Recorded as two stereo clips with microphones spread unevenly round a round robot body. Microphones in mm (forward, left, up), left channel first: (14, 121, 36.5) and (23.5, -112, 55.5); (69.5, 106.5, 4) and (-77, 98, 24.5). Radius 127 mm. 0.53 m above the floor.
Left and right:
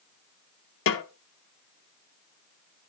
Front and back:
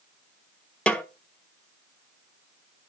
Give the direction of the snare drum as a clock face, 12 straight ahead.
9 o'clock.